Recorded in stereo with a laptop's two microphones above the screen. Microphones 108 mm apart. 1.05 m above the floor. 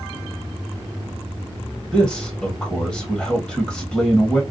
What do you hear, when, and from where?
1.9 s a man speaking: centre (ahead or behind), 0.9 m